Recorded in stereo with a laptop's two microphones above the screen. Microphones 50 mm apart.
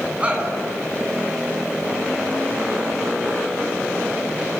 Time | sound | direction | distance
0.2 | a shout | 25° right (ahead or behind) | 9.5 m